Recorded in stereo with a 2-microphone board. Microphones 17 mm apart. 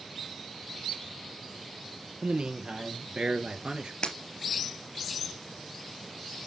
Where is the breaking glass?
60° left (ahead or behind), 2 m.